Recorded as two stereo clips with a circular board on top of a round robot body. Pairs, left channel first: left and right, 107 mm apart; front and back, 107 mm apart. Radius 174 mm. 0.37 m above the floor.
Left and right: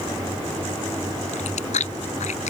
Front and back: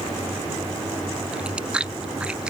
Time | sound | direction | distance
1.3 | chewing | 100° left | ?